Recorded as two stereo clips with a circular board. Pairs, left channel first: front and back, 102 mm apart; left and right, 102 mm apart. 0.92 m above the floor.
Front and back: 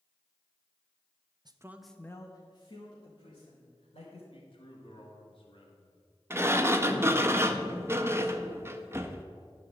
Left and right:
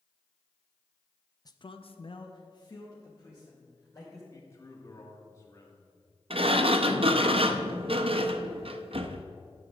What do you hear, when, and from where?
1.4 s a man speaking: 140° left, 0.6 m; by 4.2 s 25° left, 3 m
4.3 s a man speaking: 30° left, 1.6 m
6.3 s a sliding door: 115° right, 0.5 m